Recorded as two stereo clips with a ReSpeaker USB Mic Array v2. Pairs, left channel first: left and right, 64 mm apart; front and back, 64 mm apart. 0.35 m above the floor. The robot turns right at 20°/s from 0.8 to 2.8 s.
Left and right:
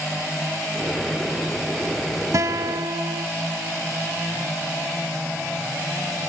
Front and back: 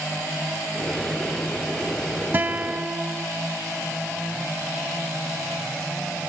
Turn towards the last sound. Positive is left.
turn(degrees=-115)